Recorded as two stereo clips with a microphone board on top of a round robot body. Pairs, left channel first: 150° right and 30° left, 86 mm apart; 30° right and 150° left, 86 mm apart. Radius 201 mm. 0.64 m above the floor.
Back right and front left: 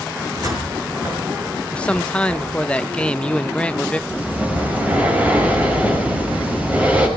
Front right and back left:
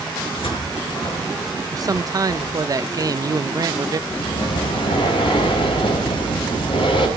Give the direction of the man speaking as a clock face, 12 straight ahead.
7 o'clock.